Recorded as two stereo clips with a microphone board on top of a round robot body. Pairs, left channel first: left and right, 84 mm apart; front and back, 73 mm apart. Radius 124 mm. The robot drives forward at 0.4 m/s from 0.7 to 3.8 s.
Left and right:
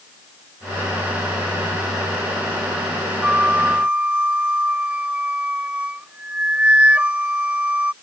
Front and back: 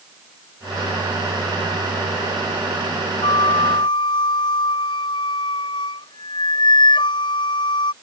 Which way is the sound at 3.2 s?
15° right.